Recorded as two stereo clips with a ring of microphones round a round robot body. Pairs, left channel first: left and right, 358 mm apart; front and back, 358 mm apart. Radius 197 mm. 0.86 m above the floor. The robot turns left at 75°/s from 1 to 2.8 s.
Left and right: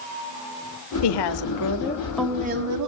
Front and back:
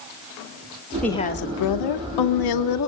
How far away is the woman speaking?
About 2.0 m.